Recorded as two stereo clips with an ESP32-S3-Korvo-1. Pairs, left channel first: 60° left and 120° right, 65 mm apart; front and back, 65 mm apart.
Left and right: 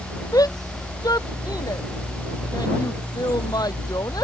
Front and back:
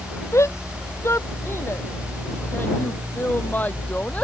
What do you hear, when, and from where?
0.3 s a shout: 40° left; by 4.2 s 65° left